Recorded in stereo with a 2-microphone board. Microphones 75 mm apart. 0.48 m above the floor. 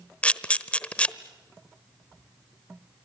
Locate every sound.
0.2 s a camera shutter: 15° left (ahead or behind), 1.0 m